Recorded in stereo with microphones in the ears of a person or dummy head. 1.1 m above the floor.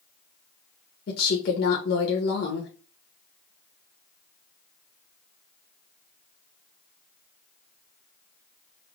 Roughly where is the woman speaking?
Left.